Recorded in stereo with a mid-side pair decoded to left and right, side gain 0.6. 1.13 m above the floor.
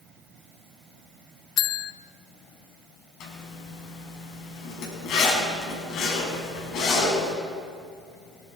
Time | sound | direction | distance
1.6 | a bell | 55° left | 0.5 m
3.2 | a zipper | 60° left | 5.5 m